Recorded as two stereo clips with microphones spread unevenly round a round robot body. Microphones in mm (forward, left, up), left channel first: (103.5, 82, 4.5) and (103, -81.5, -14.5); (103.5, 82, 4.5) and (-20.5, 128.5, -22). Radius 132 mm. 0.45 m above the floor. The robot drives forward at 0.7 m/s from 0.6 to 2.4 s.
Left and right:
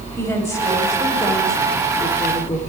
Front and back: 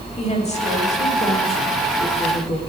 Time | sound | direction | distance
0.2 | a woman speaking | 15° left | 2.5 m